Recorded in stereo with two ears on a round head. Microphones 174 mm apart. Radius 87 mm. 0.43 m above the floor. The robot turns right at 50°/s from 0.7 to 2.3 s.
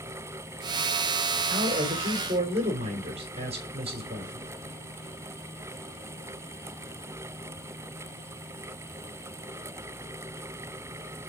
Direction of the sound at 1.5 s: 100° right.